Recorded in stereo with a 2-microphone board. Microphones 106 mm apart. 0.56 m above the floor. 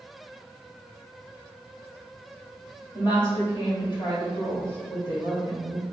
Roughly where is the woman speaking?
Left.